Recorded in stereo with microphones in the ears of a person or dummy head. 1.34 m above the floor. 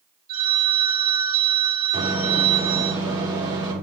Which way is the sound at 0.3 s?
50° right (ahead or behind).